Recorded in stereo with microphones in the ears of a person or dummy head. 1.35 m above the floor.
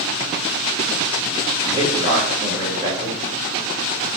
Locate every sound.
1.6 s a man speaking: 25° right (ahead or behind), 1.4 m